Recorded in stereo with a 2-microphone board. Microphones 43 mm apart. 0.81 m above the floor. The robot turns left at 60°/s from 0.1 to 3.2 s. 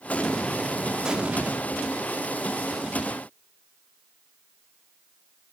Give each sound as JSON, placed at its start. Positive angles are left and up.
{"t": 0.1, "sound": "an explosion", "azimuth_deg": 40, "distance_m": 0.9}